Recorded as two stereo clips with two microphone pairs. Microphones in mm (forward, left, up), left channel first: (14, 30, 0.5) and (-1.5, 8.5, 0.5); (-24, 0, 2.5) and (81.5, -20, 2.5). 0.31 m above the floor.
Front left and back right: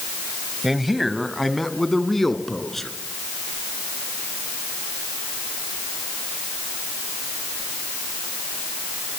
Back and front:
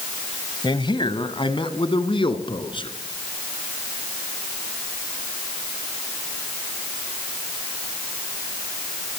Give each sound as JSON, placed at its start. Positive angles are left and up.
{"t": 0.6, "sound": "a man speaking", "azimuth_deg": 155, "distance_m": 1.5}